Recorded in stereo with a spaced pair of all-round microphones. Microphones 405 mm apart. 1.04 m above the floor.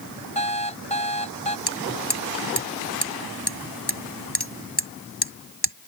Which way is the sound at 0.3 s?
15° left (ahead or behind).